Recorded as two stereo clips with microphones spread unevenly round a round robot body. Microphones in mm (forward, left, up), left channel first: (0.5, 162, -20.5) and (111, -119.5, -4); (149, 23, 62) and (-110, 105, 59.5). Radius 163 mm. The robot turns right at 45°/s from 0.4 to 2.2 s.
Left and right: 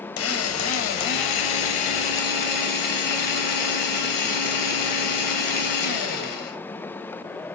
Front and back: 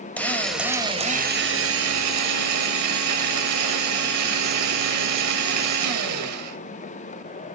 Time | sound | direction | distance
0.2 | a drill | 65° left | 3 m